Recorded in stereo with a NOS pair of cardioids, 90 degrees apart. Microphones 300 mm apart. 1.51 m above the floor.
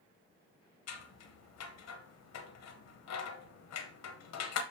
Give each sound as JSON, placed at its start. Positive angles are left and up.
{"t": 0.9, "sound": "scissors", "azimuth_deg": 65, "distance_m": 0.9}